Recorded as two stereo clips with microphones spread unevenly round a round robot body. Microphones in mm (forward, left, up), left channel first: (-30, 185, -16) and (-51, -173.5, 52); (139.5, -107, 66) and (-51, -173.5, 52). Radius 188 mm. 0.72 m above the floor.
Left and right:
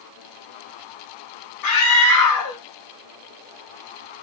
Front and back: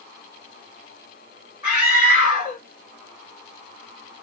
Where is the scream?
90° left, 1.5 m.